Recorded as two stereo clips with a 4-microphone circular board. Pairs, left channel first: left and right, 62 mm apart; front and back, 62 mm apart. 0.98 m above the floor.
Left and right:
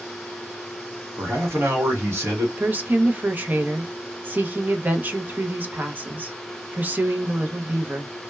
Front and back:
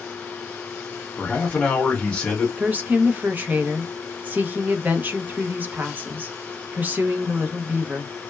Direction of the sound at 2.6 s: 135° right.